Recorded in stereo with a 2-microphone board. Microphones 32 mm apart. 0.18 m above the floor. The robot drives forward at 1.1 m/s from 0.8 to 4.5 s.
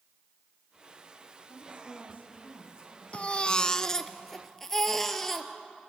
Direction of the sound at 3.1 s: 40° left (ahead or behind).